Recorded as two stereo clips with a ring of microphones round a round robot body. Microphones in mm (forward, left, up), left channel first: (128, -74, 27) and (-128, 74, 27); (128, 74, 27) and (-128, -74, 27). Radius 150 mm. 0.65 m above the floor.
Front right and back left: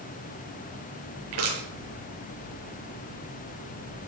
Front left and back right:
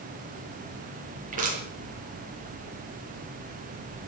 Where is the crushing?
145° left, 8.5 m.